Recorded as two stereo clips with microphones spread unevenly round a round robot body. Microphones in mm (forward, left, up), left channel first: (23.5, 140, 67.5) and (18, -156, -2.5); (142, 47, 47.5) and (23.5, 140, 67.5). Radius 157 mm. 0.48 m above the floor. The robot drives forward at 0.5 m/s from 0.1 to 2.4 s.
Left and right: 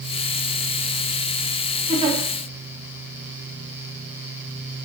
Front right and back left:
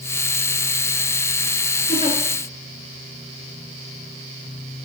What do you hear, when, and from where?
1.9 s a giggle: 40° right, 1.0 m; by 2.2 s 50° right, 0.9 m